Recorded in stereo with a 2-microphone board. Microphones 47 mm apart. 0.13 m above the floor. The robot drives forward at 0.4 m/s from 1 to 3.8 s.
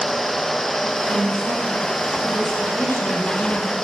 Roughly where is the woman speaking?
Left.